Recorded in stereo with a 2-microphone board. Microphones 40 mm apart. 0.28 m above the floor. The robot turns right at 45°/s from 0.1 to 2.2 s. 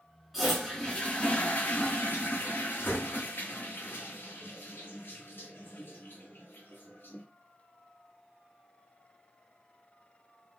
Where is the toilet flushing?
5° right, 2 m; by 7.2 s 80° left, 2 m.